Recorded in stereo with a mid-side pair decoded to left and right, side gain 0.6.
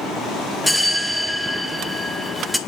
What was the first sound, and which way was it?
A bell, 5° left.